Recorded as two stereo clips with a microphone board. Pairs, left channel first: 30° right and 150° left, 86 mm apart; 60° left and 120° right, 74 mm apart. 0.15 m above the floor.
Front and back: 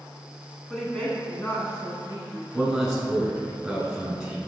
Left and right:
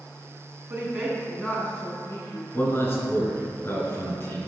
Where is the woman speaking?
115° right, 1.5 m; by 2.4 s 20° left, 2.5 m.